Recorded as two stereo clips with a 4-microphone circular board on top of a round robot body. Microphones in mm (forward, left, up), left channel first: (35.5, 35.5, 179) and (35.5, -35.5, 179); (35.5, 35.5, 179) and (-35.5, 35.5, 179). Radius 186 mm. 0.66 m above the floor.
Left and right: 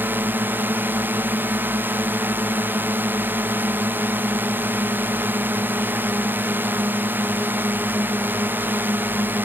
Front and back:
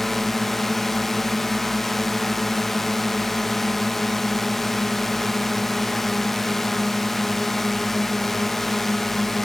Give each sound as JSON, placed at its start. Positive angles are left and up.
{"t": 0.0, "sound": "a drone", "azimuth_deg": -80}